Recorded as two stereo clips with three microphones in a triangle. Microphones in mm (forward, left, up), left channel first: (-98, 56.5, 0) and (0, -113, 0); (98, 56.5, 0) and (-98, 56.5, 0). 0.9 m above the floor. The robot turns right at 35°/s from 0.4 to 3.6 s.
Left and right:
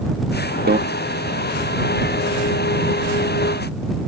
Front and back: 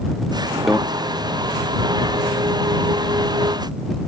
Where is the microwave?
90° right; by 0.8 s 85° right.